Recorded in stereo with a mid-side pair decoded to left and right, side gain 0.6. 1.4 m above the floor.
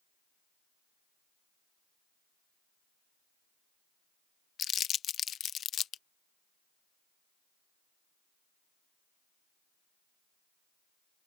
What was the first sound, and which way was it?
Crumpling, 45° left.